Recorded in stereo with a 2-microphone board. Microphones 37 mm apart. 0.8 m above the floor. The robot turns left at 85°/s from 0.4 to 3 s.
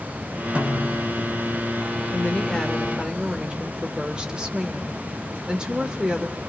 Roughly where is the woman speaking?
Ahead left.